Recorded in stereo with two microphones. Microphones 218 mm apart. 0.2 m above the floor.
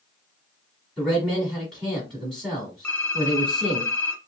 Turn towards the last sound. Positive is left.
turn(degrees=10)  # may be behind; listen again after turning